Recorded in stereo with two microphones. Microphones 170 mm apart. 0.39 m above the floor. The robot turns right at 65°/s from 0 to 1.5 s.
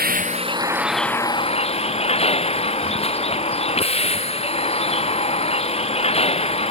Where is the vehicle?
60° right; by 6.7 s 35° left.